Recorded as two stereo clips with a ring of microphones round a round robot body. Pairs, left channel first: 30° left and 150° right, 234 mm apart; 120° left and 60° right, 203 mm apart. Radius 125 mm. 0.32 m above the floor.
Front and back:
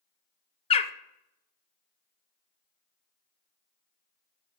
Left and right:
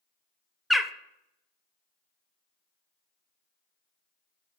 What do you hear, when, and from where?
0.7 s a bird: 30° left, 0.5 m